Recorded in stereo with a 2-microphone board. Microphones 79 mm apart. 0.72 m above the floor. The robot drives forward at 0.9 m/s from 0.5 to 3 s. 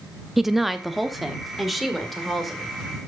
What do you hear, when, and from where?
0.4 s a woman speaking: 5° right (ahead or behind), 0.6 m; by 2.7 s centre (ahead or behind), 2.5 m